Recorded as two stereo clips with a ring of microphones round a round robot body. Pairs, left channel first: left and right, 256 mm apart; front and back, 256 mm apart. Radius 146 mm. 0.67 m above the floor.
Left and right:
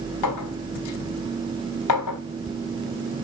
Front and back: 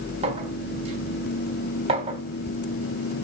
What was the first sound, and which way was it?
A clink, 110° left.